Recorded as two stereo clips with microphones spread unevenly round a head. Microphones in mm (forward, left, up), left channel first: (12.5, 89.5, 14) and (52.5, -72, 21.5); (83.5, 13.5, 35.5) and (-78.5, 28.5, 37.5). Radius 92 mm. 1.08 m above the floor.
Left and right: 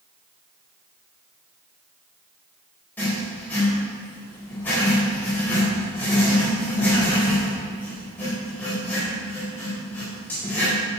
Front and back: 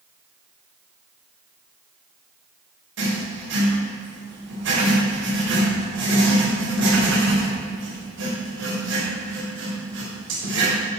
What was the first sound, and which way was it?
Writing, 175° right.